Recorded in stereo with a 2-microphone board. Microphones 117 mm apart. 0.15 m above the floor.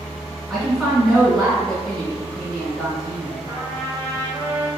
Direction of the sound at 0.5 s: 5° left (ahead or behind).